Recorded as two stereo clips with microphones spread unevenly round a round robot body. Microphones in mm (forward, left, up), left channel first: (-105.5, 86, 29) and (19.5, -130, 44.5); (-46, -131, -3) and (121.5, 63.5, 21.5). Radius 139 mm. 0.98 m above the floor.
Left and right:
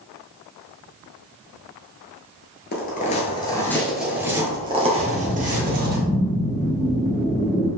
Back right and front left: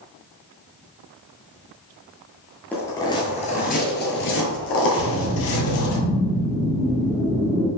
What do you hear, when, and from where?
2.7 s footsteps: 140° left, 1.1 m; by 6.0 s 105° right, 1.7 m
5.0 s a whoosh: 50° left, 0.9 m